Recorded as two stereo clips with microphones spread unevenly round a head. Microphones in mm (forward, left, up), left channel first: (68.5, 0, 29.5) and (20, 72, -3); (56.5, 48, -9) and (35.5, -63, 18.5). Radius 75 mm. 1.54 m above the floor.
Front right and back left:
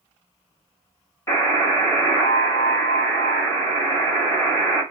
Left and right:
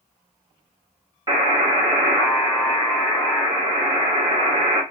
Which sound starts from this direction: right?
A buzzer, at 1.3 s.